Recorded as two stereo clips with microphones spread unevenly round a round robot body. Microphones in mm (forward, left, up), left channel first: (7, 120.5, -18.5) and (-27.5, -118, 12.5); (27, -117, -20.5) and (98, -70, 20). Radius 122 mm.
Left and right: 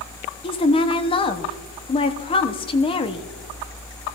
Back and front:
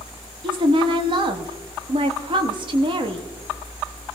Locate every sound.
0.4 s a woman speaking: 70° left, 0.8 m